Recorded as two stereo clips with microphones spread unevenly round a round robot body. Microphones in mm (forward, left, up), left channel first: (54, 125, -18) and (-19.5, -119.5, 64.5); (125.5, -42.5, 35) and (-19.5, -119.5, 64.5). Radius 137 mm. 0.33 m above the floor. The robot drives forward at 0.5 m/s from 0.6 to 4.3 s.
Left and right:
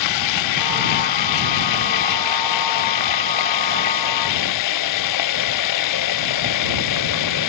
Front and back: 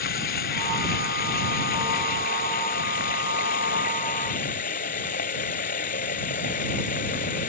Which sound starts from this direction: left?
Running water, at 0.0 s.